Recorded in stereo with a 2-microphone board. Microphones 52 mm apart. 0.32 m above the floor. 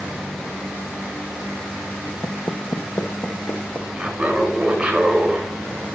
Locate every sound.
2.2 s footsteps: 55° left (ahead or behind), 0.5 m; by 3.9 s 35° left (ahead or behind), 1.2 m
4.0 s laughter: 15° right (ahead or behind), 1.5 m